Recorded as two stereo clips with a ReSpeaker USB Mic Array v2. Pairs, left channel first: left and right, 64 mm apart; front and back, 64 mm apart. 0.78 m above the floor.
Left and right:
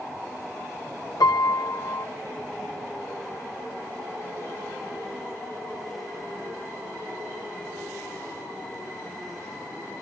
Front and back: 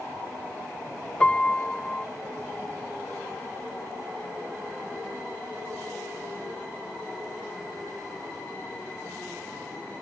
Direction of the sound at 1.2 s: 75° left.